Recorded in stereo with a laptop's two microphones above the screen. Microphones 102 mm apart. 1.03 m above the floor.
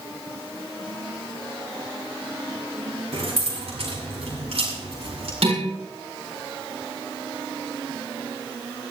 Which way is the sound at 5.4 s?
75° right (ahead or behind).